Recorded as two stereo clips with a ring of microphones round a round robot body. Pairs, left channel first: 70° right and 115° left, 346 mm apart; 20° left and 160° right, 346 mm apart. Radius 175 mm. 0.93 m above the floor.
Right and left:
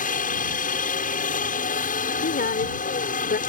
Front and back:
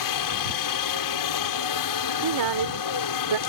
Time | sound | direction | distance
0.0 | a helicopter | straight ahead | ?
2.2 | a woman speaking | 135° right | ?